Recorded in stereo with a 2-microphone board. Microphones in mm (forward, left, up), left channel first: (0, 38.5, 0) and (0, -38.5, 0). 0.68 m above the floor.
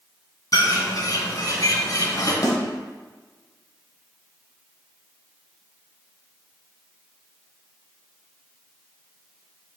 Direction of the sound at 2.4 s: 45° left (ahead or behind).